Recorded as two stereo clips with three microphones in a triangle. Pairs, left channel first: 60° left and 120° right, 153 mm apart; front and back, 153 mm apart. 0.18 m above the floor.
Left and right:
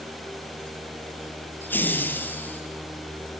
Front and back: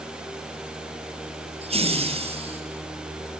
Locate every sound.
1.6 s laughter: 135° left, 4 m